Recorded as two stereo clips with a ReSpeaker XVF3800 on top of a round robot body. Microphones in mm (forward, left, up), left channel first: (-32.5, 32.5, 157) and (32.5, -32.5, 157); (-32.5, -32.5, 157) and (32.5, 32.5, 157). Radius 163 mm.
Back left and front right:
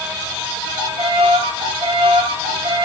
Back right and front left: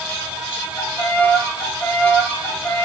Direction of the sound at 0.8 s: 65° right.